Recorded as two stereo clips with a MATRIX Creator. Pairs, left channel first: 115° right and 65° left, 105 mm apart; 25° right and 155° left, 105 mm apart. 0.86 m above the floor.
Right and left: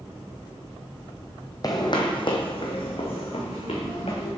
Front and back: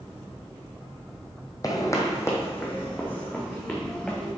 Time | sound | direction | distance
1.6 | footsteps | 70° right | 1.5 m